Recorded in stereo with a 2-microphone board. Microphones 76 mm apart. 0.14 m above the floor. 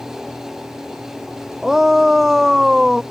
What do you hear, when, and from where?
1.6 s a shout: 5° right (ahead or behind)